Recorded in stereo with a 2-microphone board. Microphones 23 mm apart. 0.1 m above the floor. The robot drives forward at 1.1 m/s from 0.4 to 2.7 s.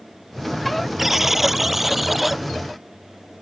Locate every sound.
1.0 s a buzzer: 10° right (ahead or behind); by 2.4 s 5° right (ahead or behind)